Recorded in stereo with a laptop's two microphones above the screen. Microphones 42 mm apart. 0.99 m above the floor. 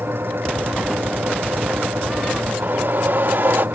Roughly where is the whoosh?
Right.